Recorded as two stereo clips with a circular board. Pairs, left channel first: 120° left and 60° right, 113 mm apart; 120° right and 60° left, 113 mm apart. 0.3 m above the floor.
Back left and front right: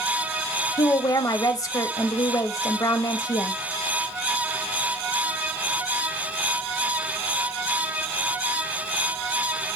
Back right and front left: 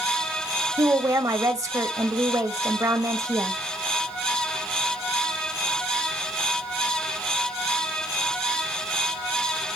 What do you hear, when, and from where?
0.8 s a woman speaking: 95° left, 1.1 m